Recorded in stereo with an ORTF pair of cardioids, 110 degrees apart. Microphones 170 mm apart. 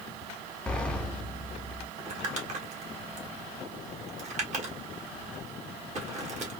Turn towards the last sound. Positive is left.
turn(degrees=-45)